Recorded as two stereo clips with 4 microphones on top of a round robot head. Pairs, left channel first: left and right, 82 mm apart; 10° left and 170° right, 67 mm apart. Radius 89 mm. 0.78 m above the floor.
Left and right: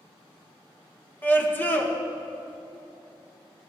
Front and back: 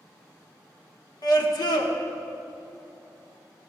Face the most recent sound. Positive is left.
turn(degrees=25)